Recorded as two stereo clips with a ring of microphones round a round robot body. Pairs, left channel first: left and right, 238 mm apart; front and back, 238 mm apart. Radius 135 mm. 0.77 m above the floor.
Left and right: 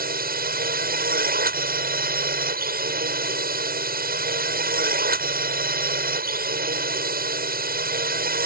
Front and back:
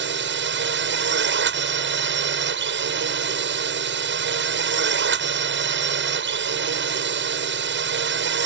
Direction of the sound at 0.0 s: 140° right.